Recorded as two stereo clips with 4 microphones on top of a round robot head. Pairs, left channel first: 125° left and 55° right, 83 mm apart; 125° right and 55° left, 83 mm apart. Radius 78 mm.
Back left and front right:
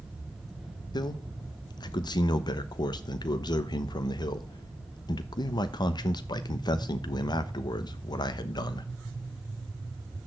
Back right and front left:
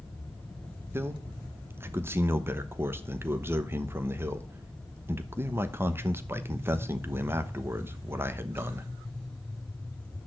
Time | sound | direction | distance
0.9 | a man speaking | 110° left | 1.0 m